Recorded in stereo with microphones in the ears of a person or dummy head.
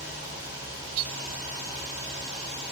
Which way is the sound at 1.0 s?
80° right.